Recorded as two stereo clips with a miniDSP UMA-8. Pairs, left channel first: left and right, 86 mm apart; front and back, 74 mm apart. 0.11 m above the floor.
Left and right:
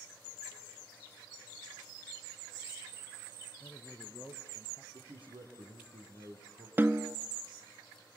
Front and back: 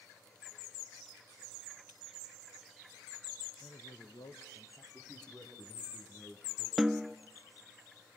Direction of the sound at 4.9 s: 80° right.